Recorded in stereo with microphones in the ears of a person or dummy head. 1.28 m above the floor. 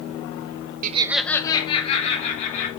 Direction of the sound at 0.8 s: 50° right (ahead or behind).